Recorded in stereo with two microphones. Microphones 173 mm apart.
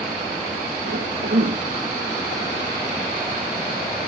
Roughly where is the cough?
Right.